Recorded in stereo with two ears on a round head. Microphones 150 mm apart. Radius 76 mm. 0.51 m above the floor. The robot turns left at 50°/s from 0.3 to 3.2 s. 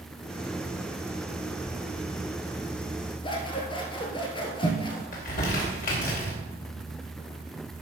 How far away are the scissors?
About 1.7 m.